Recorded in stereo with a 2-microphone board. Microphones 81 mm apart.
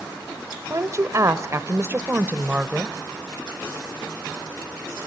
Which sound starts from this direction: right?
A woman speaking, at 0.7 s.